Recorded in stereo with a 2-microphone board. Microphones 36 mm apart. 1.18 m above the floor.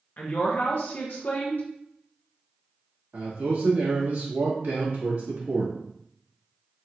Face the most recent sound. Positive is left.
turn(degrees=-70)  # may be behind; listen again after turning